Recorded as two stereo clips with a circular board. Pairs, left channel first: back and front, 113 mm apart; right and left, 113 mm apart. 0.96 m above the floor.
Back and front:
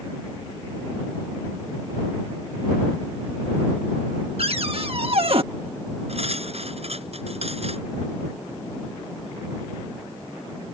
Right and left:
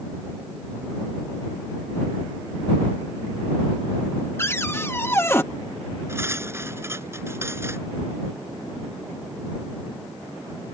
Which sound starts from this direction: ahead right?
A cupboard door, at 4.4 s.